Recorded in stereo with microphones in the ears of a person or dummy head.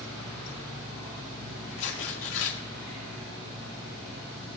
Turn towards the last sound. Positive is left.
turn(degrees=75)  # may be behind; listen again after turning